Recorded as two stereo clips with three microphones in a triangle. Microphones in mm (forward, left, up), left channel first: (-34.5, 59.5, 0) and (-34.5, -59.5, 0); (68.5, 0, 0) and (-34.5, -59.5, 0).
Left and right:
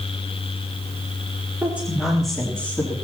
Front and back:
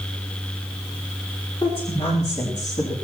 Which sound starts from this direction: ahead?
A woman speaking, at 1.6 s.